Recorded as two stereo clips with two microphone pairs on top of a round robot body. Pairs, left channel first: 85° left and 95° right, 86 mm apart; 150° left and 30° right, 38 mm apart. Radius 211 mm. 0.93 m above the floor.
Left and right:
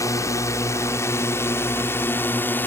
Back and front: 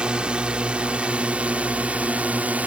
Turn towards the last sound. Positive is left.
turn(degrees=15)